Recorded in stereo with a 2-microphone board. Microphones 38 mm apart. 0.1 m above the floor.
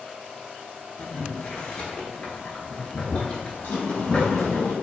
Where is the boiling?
35° left (ahead or behind), 0.6 m.